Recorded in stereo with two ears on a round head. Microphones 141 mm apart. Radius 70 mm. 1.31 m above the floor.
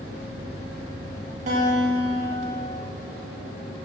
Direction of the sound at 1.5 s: 45° right (ahead or behind).